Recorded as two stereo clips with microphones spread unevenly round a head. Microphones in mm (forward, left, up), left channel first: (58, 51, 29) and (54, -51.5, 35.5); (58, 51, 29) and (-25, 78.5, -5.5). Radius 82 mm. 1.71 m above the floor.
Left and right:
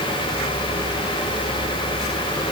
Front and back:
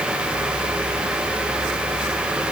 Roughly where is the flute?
I don't hear a flute.